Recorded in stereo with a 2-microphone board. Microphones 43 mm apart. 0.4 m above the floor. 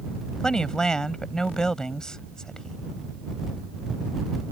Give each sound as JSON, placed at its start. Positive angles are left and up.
{"t": 0.4, "sound": "a woman speaking", "side_deg": 15}